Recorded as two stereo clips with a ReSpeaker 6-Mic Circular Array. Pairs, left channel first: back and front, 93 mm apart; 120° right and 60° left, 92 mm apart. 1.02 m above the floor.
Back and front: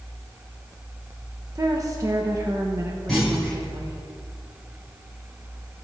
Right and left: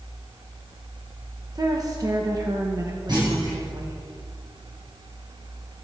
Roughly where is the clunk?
Left.